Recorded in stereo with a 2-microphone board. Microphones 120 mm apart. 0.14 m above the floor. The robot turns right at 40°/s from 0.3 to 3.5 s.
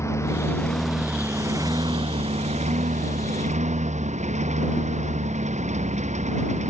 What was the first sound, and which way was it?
A lawn mower, 155° left.